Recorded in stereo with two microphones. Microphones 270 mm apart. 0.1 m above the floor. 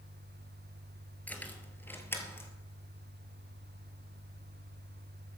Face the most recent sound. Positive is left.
turn(degrees=10)  # may be behind; listen again after turning